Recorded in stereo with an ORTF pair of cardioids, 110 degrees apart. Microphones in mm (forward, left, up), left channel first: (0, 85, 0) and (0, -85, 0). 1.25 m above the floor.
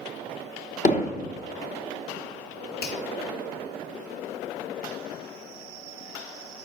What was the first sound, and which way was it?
Hammering, 45° left.